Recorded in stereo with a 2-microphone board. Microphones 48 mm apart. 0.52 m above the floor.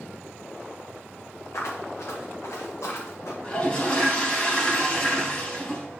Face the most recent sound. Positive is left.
turn(degrees=25)  # may be behind; listen again after turning